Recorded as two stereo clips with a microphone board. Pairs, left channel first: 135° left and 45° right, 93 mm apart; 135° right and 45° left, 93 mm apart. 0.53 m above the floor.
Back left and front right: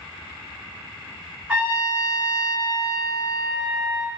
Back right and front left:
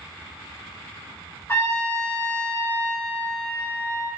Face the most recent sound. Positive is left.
turn(degrees=-115)